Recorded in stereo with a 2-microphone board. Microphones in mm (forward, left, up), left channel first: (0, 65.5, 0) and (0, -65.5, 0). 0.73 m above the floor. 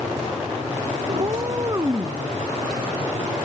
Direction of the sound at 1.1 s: 40° right (ahead or behind).